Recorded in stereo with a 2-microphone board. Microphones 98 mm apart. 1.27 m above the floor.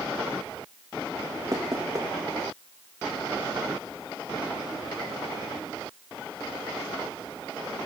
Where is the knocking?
35° right (ahead or behind), 1.6 m.